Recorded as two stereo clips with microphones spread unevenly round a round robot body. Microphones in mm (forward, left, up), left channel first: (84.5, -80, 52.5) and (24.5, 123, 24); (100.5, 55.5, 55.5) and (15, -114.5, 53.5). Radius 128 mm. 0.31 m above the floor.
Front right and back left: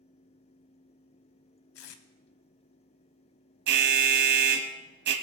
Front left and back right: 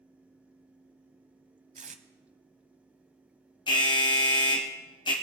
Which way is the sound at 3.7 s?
130° left.